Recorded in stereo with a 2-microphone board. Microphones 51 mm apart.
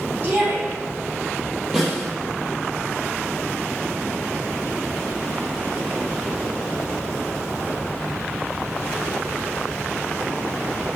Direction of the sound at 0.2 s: 30° right (ahead or behind).